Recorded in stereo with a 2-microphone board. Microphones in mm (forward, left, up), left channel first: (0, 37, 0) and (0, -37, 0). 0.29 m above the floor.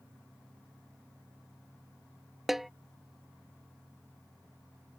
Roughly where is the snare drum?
Centre.